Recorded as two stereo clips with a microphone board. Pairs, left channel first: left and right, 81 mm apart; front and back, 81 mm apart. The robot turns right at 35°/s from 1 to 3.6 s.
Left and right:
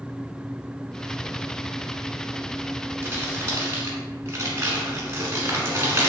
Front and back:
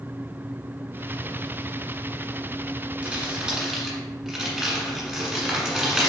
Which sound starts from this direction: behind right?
Crumpling, at 3.0 s.